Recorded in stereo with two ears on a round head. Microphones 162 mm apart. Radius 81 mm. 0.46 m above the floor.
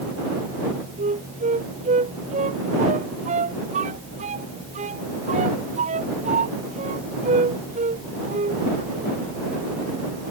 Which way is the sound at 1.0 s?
40° right (ahead or behind).